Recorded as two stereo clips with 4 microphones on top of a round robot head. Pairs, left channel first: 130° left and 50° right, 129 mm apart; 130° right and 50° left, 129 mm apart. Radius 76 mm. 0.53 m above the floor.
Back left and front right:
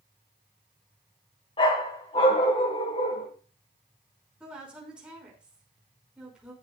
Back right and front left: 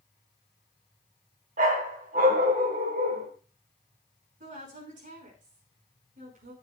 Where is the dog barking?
75° left, 2.5 m.